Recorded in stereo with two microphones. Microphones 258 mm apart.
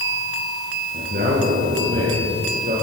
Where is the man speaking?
55° right (ahead or behind), 9.5 m; by 2.7 s 45° right (ahead or behind), 11 m.